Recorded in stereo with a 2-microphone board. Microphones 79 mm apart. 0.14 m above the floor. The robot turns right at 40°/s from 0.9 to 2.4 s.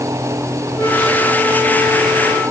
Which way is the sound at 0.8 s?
165° left.